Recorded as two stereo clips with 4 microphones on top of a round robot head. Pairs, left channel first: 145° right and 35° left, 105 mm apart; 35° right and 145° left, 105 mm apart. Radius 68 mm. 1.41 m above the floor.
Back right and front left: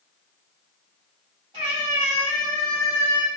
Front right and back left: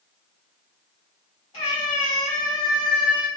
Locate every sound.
1.5 s a cat meowing: straight ahead, 1.3 m; by 3.3 s 85° left, 1.8 m